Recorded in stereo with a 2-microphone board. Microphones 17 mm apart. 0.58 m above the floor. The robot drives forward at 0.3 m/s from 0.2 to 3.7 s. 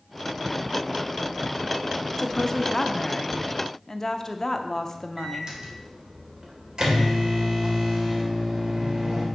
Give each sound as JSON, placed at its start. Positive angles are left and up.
{"t": 2.2, "sound": "a woman speaking", "side_deg": 30, "distance_m": 0.6}
{"t": 5.2, "sound": "a microwave", "side_deg": -50, "distance_m": 2.0}